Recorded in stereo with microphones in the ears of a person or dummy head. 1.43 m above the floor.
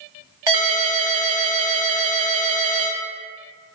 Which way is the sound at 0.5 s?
20° right (ahead or behind).